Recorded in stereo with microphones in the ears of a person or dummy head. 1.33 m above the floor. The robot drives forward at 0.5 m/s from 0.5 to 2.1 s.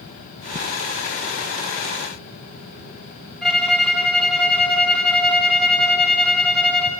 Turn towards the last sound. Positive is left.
turn(degrees=0)  # may be behind; listen again after turning